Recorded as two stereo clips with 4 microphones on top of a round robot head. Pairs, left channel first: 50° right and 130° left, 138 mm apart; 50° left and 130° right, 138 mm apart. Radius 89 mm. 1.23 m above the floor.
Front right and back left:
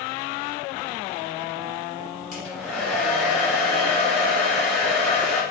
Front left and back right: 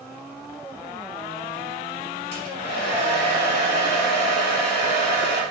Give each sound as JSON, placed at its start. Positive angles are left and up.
{"t": 2.3, "sound": "a hair dryer", "azimuth_deg": 40, "distance_m": 1.7}